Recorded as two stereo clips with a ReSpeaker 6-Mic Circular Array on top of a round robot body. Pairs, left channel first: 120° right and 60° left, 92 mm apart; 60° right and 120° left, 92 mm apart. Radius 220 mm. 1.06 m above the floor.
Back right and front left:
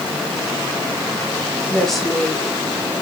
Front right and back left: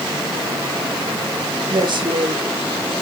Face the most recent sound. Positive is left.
turn(degrees=155)